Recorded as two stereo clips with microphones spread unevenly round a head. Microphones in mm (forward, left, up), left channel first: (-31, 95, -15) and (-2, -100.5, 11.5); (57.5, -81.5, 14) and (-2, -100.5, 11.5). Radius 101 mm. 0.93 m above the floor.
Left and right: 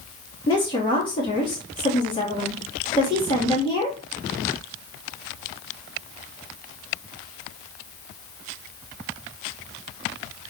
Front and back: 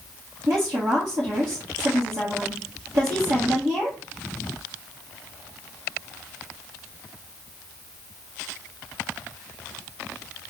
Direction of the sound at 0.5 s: 165° left.